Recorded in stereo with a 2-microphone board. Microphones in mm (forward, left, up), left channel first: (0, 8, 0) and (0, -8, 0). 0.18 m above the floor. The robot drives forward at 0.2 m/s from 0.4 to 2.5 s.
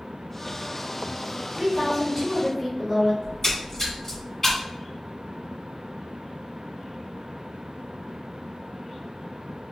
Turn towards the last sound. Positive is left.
turn(degrees=30)  # may be behind; listen again after turning